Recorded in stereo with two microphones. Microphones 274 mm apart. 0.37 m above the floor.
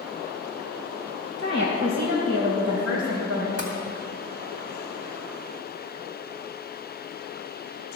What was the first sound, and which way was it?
A woman speaking, 50° right (ahead or behind).